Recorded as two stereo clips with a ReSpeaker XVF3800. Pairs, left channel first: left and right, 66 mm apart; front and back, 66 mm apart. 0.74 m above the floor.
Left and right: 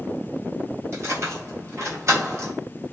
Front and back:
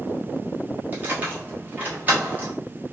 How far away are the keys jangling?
About 1.0 m.